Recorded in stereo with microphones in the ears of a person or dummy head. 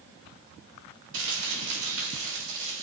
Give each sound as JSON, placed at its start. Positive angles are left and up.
{"t": 1.1, "sound": "crumpling", "side_deg": -75, "distance_m": 3.5}